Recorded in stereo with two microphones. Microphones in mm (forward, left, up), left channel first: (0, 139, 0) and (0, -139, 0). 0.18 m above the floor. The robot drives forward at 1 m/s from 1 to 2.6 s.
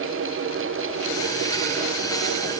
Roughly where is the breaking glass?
I don't hear breaking glass.